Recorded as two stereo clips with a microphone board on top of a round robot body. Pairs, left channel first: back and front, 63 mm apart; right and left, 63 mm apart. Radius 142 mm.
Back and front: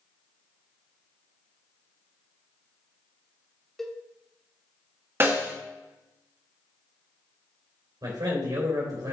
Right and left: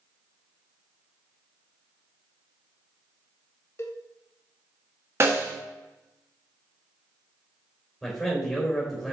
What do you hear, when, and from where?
3.8 s a cowbell: 100° right, 1.1 m
5.2 s a snare drum: 50° left, 1.7 m
8.0 s a man speaking: straight ahead, 3.5 m